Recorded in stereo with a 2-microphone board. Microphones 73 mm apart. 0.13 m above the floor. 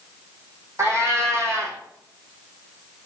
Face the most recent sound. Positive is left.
turn(degrees=-40)  # may be behind; listen again after turning